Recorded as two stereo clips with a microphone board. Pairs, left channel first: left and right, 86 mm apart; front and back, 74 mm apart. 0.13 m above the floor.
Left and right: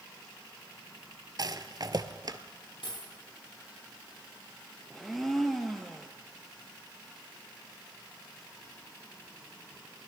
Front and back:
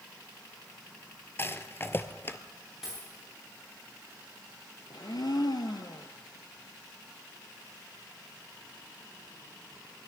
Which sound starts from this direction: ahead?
A blender, at 4.9 s.